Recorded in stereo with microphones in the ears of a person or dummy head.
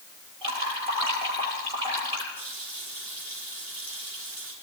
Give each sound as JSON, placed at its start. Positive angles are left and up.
{"t": 0.4, "sound": "dripping", "side_deg": -25, "distance_m": 7.0}
{"t": 2.4, "sound": "a running tap", "side_deg": 10, "distance_m": 9.5}